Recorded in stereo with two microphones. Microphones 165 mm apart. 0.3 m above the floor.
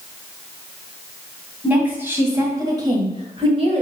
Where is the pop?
No pop in this recording.